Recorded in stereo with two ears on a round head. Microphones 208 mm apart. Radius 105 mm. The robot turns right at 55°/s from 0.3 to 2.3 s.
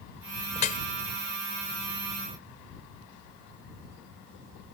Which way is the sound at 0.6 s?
25° left (ahead or behind).